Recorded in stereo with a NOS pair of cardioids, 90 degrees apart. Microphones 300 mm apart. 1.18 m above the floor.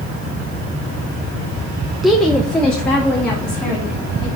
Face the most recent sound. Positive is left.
turn(degrees=5)